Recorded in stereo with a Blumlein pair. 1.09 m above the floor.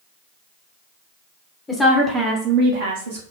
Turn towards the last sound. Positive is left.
turn(degrees=-75)